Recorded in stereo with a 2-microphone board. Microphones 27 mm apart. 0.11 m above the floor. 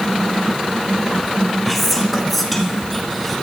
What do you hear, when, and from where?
1.6 s whispering: 5° left (ahead or behind), 1.1 m